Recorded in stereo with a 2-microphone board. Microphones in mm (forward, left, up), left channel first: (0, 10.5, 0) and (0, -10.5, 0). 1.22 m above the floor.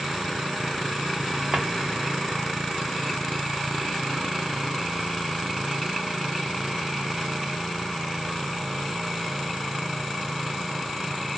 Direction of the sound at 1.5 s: 65° right (ahead or behind).